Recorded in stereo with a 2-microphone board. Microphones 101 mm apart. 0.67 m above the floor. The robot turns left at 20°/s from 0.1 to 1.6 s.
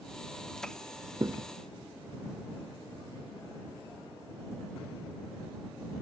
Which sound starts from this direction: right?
A thud, at 1.2 s.